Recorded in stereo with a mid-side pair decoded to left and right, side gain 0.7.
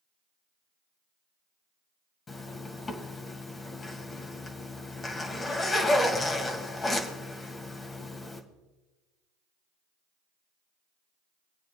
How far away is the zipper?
About 2 m.